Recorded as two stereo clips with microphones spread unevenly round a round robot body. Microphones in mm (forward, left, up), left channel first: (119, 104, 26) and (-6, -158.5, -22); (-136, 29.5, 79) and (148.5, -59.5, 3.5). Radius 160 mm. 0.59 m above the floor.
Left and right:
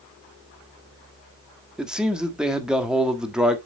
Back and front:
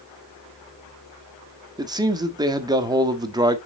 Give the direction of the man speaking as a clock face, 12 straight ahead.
2 o'clock.